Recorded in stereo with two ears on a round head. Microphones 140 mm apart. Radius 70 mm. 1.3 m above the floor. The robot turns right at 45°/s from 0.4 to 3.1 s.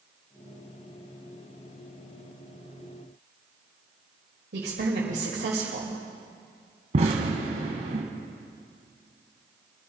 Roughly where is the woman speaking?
Right.